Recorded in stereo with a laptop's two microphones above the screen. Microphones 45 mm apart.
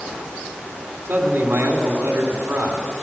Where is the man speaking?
55° right (ahead or behind), 2.5 m.